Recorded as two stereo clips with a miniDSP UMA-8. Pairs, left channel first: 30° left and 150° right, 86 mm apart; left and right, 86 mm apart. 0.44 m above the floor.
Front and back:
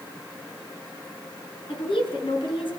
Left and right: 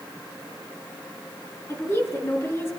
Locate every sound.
1.7 s a woman speaking: 30° left, 7 m